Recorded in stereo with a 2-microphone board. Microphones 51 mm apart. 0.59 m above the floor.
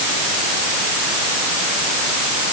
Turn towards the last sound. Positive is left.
No sound to turn to.